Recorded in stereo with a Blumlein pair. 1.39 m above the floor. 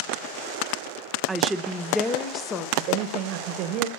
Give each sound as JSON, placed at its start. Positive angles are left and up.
{"t": 1.3, "sound": "a woman speaking", "azimuth_deg": -15, "distance_m": 1.1}
{"t": 2.8, "sound": "a man speaking", "azimuth_deg": -40, "distance_m": 1.4}